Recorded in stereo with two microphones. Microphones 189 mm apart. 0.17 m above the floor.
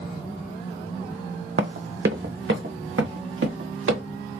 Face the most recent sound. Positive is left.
turn(degrees=-90)